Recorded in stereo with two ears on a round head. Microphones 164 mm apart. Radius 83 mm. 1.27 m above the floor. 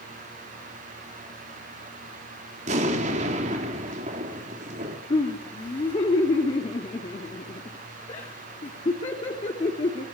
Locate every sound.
2.7 s an explosion: 40° right (ahead or behind), 3.5 m
5.1 s laughter: 30° left (ahead or behind), 3 m